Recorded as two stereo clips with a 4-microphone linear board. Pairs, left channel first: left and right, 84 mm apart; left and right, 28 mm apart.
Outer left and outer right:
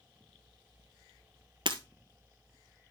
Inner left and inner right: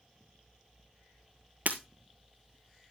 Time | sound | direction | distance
1.6 | breaking glass | 75° right (ahead or behind) | 1.3 m